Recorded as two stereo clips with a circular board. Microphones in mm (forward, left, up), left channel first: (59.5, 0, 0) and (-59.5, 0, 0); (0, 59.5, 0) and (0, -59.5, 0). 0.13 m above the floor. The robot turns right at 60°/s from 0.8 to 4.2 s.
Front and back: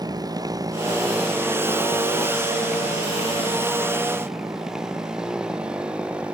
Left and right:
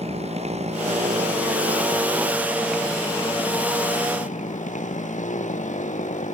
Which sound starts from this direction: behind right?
A motorcycle, at 0.0 s.